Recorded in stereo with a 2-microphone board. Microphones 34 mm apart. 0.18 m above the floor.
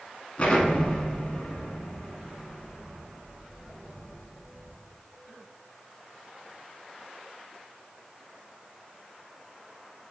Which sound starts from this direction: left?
An explosion, at 0.4 s.